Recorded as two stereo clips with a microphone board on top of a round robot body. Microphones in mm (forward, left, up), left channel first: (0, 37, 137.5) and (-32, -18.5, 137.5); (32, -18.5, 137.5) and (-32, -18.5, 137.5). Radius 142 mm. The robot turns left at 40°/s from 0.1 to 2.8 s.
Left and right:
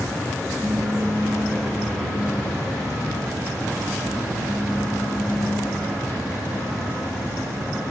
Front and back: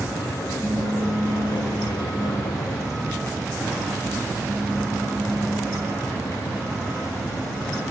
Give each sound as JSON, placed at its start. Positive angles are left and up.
{"t": 0.6, "sound": "a pop", "azimuth_deg": -165, "distance_m": 2.0}